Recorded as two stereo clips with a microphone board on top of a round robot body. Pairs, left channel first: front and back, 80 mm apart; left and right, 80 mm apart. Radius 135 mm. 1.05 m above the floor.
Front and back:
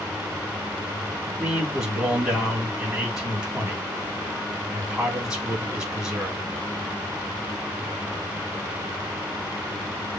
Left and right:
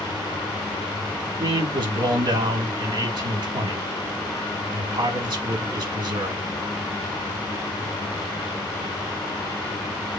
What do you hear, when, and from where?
1.4 s a man speaking: 95° right, 3.5 m